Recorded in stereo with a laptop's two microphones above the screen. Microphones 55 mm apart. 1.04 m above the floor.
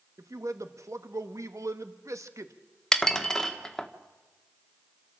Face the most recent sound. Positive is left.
turn(degrees=10)  # may be behind; listen again after turning